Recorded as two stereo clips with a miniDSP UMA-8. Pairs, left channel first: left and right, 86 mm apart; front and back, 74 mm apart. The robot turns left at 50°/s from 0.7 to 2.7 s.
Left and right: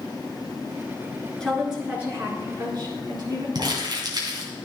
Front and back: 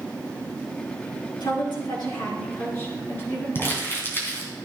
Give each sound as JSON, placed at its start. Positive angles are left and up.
{"t": 1.4, "sound": "a woman speaking", "azimuth_deg": 10, "distance_m": 4.5}
{"t": 3.5, "sound": "crumpling", "azimuth_deg": -60, "distance_m": 3.0}